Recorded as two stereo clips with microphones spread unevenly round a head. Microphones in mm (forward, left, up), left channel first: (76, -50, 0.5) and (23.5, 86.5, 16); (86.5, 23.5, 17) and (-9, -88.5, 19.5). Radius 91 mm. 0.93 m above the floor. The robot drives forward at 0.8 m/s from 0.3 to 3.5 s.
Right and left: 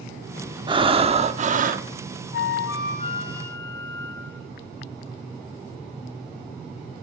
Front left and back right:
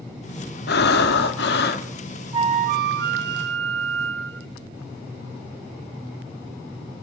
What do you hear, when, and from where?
0.7 s breathing: 50° left, 1.7 m; by 1.9 s 85° left, 1.4 m
2.3 s a flute: 70° right, 0.5 m; by 4.5 s 150° right, 0.9 m